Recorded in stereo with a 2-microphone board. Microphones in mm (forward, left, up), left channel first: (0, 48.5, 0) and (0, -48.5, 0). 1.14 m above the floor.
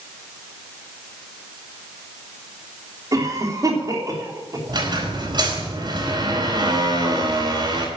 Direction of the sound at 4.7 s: 50° right (ahead or behind).